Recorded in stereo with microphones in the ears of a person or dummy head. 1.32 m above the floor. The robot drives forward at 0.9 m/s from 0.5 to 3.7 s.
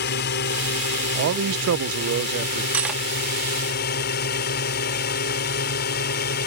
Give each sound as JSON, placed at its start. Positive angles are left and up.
{"t": 0.0, "sound": "a drone", "side_deg": 55}
{"t": 1.1, "sound": "a man speaking", "side_deg": -60}
{"t": 2.7, "sound": "cutlery clinking", "side_deg": -5}